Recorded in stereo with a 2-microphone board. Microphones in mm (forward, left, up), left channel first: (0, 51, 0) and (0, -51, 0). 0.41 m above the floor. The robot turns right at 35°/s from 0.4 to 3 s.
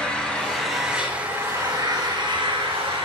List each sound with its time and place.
0.0 s an engine running: 170° left, 2.5 m; by 3.0 s 100° right, 2.5 m